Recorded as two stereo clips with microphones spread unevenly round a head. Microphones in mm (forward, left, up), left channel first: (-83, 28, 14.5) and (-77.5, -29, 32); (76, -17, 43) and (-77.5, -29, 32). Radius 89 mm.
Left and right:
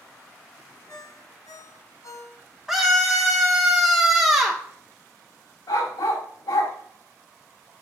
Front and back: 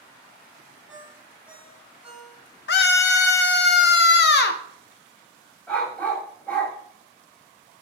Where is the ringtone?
100° left, 3 m.